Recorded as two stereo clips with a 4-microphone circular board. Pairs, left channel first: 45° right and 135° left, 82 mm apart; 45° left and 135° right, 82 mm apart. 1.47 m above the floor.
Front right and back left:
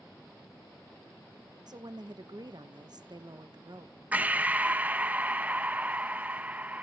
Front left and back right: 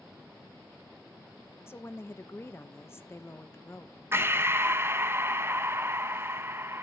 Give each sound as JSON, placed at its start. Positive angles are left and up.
{"t": 1.7, "sound": "a woman speaking", "azimuth_deg": 105, "distance_m": 1.2}
{"t": 4.1, "sound": "breathing", "azimuth_deg": -170, "distance_m": 0.7}